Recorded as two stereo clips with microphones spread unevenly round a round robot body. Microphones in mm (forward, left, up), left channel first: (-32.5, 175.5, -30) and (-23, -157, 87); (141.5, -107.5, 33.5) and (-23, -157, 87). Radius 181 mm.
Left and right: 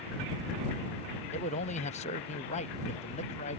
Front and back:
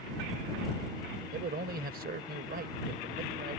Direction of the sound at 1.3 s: 145° left.